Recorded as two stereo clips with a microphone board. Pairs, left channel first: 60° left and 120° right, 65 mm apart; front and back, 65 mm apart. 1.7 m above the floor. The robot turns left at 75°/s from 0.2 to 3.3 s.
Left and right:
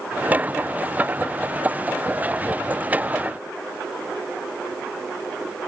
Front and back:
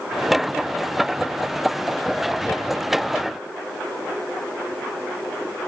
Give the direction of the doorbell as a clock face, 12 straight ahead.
I don't hear a doorbell.